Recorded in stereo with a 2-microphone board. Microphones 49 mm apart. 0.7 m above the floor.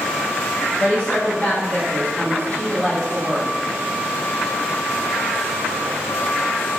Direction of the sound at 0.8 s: 30° left (ahead or behind).